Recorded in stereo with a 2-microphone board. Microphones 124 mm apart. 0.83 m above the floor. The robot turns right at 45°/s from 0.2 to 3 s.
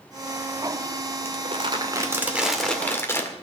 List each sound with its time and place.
1.2 s crumpling: 60° right, 1.9 m; by 3.3 s 20° left, 1.9 m